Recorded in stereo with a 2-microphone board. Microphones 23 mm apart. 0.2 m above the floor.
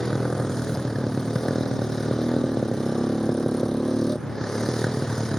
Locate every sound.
0.0 s a motorcycle: 25° left (ahead or behind)